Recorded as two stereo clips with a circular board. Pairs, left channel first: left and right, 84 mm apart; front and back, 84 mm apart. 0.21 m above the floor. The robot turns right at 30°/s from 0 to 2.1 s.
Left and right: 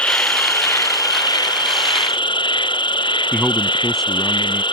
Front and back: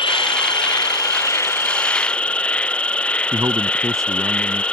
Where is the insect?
15° left; by 4.7 s 75° left.